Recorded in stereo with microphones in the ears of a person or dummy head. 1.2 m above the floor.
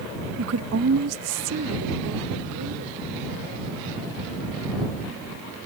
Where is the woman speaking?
75° right (ahead or behind); by 3.0 s 80° right.